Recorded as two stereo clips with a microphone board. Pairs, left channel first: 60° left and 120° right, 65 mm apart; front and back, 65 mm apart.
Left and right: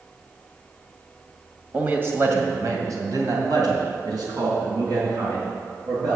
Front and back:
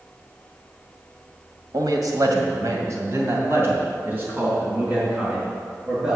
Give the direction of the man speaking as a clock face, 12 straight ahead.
6 o'clock.